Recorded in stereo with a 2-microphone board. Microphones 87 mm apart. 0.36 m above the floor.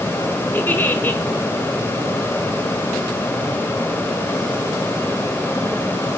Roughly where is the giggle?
Left.